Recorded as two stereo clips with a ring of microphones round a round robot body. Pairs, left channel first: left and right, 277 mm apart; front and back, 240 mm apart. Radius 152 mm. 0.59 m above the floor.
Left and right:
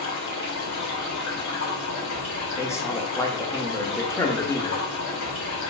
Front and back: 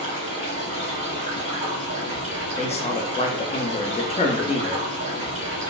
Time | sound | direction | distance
0.0 | running water | 120° left | 1.4 m
2.6 | a man speaking | 20° left | 0.6 m